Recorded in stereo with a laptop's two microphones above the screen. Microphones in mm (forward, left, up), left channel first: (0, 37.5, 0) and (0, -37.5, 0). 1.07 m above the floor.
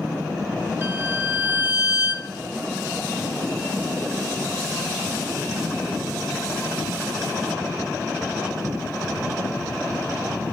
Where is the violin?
30° right (ahead or behind), 1.8 m.